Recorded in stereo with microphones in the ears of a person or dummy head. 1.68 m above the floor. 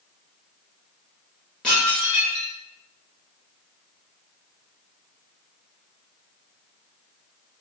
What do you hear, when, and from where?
1.6 s dishes clattering: 10° left (ahead or behind), 1.9 m